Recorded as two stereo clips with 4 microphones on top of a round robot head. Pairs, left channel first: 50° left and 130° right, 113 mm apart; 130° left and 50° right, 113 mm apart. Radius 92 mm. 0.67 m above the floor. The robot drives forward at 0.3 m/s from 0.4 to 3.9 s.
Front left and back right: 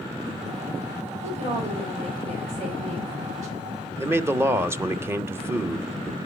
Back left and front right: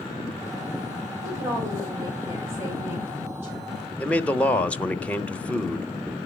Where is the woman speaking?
110° right, 3.5 m; by 3.8 s 120° right, 4 m.